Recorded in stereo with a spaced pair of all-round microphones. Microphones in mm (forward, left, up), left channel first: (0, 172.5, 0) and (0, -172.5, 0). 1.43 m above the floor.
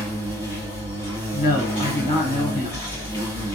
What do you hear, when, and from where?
0.0 s an insect: 35° right (ahead or behind), 1.7 m
1.3 s a man speaking: 80° left, 0.9 m